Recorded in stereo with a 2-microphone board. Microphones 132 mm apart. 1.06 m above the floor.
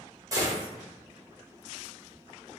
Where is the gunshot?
25° right (ahead or behind), 0.8 m.